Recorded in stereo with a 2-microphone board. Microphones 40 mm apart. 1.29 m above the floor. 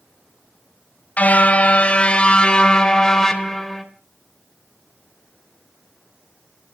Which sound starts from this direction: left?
A car horn, at 1.2 s.